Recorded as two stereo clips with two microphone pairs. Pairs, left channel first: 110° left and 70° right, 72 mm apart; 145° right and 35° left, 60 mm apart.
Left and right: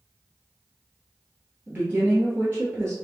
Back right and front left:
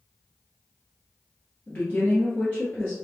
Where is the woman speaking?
110° right, 1.4 m.